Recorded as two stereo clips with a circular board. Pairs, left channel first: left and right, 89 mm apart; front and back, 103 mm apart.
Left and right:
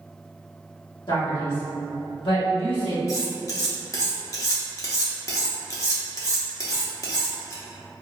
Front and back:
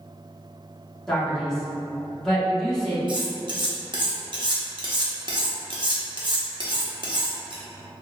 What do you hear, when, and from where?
1.1 s a man speaking: 85° left, 1.5 m
3.1 s cutlery clinking: 140° left, 0.8 m